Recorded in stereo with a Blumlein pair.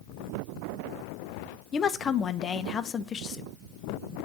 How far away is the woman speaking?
About 0.6 m.